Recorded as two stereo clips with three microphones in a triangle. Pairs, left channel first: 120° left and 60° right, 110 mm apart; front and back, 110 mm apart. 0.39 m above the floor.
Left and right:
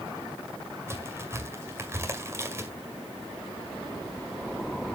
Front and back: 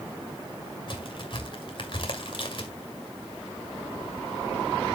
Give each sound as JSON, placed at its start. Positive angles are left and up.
{"t": 0.9, "sound": "a crack", "azimuth_deg": 0, "distance_m": 1.9}